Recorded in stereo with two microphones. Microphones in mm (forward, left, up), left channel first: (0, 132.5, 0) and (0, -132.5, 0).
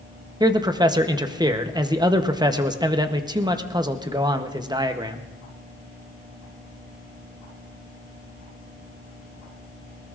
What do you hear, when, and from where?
0.4 s a man speaking: 15° right (ahead or behind), 0.8 m